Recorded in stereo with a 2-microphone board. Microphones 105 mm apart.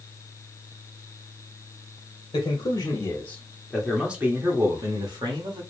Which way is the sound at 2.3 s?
40° left (ahead or behind).